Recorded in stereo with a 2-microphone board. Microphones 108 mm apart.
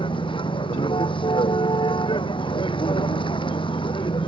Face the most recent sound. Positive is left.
turn(degrees=45)  # may be behind; listen again after turning